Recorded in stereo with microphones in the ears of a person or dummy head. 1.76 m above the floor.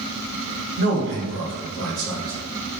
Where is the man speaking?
50° right (ahead or behind), 0.8 m; by 2.3 s 70° right (ahead or behind), 1.9 m.